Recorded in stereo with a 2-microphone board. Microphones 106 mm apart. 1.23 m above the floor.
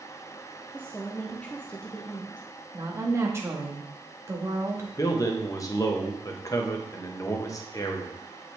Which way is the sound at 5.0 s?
30° left (ahead or behind).